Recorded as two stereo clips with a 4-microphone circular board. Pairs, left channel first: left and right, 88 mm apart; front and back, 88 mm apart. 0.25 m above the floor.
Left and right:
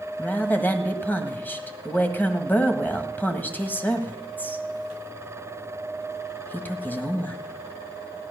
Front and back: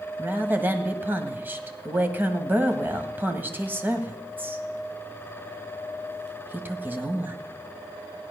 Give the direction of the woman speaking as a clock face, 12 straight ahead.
7 o'clock.